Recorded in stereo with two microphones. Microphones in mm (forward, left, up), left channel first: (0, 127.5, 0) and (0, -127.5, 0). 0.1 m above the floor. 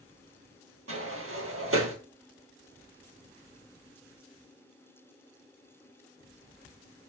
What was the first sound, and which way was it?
A sliding door, 60° right (ahead or behind).